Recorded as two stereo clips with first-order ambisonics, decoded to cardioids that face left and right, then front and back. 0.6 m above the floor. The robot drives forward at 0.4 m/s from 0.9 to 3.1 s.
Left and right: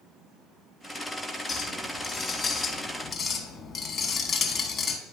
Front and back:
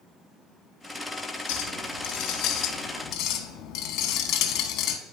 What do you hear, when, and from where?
1.5 s a clink: 15° left, 1.3 m; by 5.0 s 35° left, 0.8 m